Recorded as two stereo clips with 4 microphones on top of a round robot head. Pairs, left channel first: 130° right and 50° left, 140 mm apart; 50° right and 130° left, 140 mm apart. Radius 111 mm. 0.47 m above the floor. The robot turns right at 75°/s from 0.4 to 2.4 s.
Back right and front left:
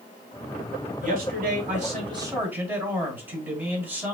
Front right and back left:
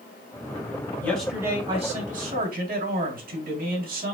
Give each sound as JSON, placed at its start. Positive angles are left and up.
{"t": 1.0, "sound": "a man speaking", "azimuth_deg": 25, "distance_m": 4.0}